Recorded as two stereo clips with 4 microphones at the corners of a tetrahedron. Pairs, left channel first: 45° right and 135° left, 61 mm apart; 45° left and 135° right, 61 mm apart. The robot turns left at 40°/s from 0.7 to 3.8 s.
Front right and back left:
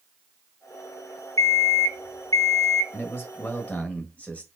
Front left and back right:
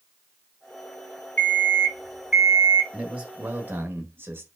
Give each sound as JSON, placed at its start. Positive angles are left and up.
{"t": 1.4, "sound": "an alarm clock", "azimuth_deg": -20, "distance_m": 2.5}
{"t": 2.9, "sound": "a man speaking", "azimuth_deg": -65, "distance_m": 1.3}